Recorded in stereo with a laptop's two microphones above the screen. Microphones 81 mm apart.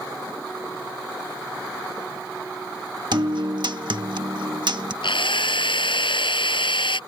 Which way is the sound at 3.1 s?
65° right (ahead or behind).